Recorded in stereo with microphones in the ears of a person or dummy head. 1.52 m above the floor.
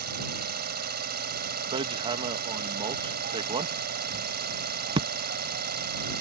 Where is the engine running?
55° right (ahead or behind).